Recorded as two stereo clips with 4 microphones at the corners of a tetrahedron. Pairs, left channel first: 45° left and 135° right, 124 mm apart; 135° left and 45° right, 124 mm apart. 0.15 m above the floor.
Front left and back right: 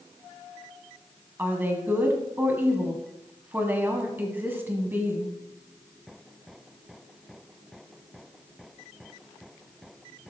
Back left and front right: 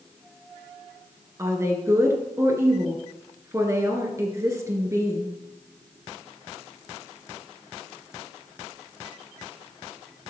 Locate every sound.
1.4 s a woman speaking: 80° right, 1.6 m